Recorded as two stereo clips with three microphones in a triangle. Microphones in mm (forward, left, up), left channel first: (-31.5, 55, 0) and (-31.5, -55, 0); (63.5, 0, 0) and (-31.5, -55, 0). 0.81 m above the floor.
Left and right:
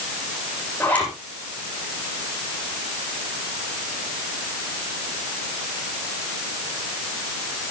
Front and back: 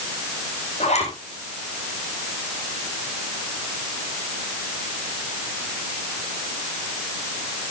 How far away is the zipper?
About 9 m.